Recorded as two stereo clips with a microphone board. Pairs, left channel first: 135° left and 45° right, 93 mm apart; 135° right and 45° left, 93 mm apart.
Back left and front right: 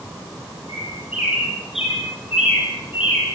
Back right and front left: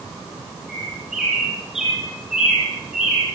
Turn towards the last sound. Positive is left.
turn(degrees=130)